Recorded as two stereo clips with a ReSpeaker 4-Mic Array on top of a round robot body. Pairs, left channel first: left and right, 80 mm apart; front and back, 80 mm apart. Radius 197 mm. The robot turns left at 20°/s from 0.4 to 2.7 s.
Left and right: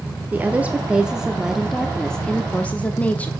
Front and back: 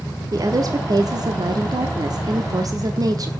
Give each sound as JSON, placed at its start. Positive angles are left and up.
{"t": 0.3, "sound": "a woman speaking", "azimuth_deg": -155, "distance_m": 1.1}